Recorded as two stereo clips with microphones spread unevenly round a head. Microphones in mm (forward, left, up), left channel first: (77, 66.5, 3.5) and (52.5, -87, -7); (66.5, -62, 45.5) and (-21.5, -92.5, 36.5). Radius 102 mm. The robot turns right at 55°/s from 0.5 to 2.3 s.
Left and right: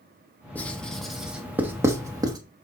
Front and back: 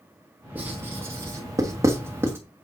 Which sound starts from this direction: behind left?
Writing, at 0.6 s.